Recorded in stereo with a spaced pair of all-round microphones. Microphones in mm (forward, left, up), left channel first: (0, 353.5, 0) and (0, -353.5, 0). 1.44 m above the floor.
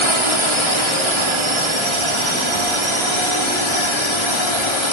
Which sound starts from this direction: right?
A drone, at 0.0 s.